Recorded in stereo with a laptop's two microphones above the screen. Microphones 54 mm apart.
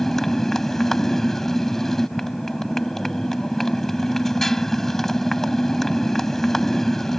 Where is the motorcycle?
10° left (ahead or behind).